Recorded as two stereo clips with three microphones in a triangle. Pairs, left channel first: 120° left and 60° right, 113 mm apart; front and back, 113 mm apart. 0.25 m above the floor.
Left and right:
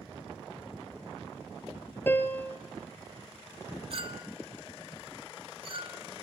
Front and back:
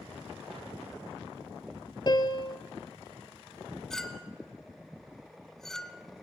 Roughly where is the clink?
Right.